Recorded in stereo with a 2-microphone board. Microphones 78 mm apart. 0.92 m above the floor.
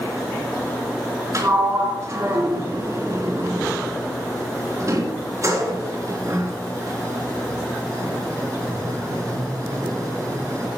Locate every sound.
1.3 s a sliding door: 45° right (ahead or behind), 3.5 m